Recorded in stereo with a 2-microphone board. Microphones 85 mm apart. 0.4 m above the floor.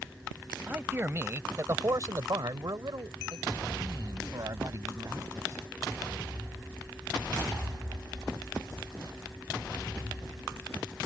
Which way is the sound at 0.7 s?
20° right (ahead or behind).